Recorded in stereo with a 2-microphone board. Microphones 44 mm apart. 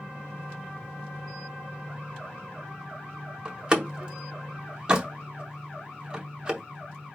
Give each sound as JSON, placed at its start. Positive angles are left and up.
{"t": 3.5, "sound": "a door slam", "side_deg": -20, "distance_m": 0.8}